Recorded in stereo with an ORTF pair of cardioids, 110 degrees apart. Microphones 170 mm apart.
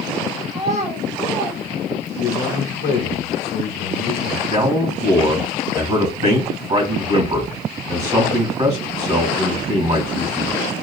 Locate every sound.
0.5 s a child speaking: 40° right, 1.8 m; by 2.4 s 25° right, 0.6 m
2.2 s a man speaking: 65° left, 0.8 m
4.5 s a man speaking: 40° right, 2.5 m